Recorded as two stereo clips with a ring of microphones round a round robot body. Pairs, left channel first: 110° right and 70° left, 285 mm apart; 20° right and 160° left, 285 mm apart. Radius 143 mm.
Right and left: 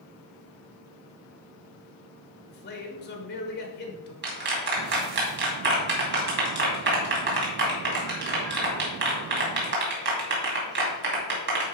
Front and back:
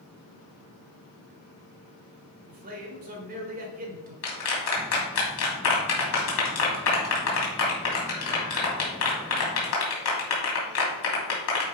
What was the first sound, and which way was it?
A man speaking, 155° right.